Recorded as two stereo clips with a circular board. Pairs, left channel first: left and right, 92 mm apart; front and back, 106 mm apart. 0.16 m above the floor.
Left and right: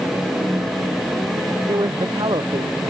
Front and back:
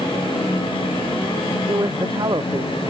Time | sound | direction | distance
1.7 | a man speaking | 130° right | ?